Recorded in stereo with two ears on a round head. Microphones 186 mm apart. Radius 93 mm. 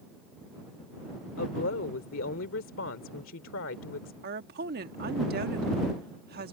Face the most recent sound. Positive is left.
turn(degrees=-50)  # may be behind; listen again after turning